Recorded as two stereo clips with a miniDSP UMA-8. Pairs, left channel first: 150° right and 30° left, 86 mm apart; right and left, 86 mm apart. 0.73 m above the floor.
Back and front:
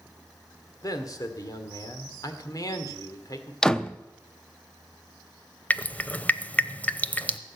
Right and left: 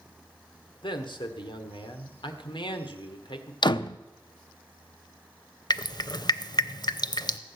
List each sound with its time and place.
0.8 s a man speaking: 105° right, 1.8 m
3.6 s a door slam: 70° right, 0.5 m
5.7 s dripping: 80° right, 0.7 m